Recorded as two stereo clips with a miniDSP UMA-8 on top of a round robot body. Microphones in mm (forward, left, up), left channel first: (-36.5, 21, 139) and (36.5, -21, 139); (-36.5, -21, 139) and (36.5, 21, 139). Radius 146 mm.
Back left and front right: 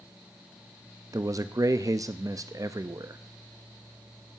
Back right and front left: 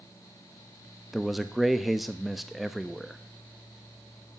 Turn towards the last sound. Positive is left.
turn(degrees=-60)